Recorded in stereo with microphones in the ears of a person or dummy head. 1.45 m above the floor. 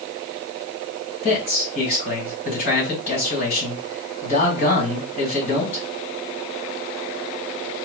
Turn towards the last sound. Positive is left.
turn(degrees=55)  # may be behind; listen again after turning